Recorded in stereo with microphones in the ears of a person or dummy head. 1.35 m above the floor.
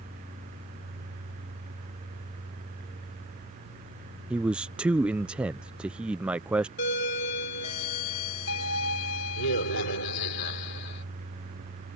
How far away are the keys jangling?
I don't hear keys jangling.